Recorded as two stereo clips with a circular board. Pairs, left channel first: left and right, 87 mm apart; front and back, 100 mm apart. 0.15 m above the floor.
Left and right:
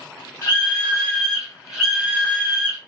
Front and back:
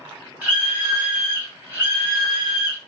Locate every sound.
0.4 s a scream: 115° left, 1.5 m; by 2.8 s 135° right, 1.7 m